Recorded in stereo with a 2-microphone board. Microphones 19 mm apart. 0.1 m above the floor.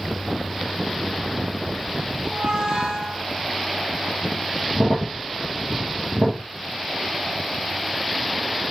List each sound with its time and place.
2.2 s a squeak: 80° right, 3.5 m
4.7 s a crack: 65° right (ahead or behind), 3 m